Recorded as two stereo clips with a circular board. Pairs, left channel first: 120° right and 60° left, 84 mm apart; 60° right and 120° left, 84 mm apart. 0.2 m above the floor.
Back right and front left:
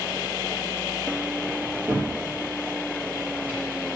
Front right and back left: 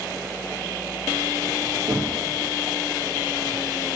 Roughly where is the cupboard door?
Behind left.